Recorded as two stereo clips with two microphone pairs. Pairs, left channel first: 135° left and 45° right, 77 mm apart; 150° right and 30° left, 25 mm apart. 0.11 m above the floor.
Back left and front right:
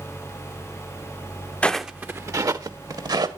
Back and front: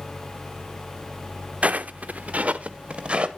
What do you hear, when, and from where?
1.6 s footsteps: 65° left, 0.6 m; by 3.3 s 15° right, 1.7 m